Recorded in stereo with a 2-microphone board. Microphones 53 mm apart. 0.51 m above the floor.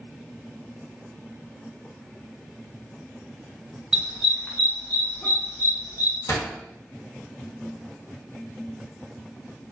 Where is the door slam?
55° left (ahead or behind), 0.9 m.